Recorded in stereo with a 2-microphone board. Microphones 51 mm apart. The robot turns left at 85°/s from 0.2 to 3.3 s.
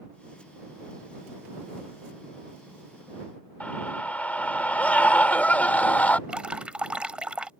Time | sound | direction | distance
3.6 | a scream | 30° left (ahead or behind) | ?
6.3 | dripping | 20° right (ahead or behind) | ?